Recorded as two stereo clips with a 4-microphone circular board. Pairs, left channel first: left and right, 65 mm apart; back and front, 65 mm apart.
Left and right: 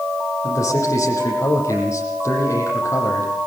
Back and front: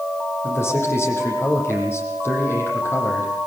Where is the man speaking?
130° left, 9.5 m.